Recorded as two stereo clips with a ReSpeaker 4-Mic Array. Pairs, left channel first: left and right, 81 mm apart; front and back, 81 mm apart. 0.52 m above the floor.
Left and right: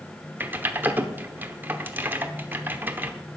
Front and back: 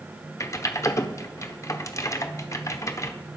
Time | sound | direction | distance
0.4 | typing on a keyboard | 35° right | 1.1 m